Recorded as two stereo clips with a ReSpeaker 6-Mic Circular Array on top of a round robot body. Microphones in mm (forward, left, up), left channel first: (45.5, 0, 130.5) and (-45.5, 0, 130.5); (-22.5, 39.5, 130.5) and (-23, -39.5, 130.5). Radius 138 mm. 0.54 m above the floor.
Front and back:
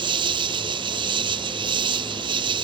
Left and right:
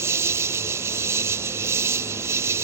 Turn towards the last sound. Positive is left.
turn(degrees=-145)